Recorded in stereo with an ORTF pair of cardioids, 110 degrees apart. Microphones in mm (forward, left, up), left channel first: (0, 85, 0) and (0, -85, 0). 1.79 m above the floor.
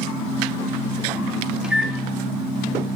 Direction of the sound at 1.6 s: 5° right.